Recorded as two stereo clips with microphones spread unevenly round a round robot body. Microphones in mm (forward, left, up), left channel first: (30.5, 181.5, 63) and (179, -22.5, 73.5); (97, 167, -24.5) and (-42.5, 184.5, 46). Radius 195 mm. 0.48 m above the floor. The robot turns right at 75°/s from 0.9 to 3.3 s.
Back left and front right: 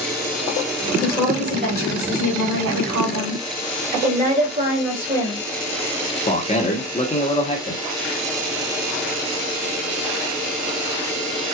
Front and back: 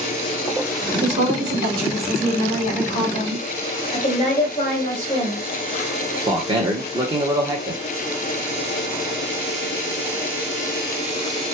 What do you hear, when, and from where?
1.0 s a woman speaking: 170° right, 2.5 m; by 3.4 s straight ahead, 2.5 m
3.9 s a woman speaking: straight ahead, 2.5 m
6.3 s a man speaking: 95° left, 1.2 m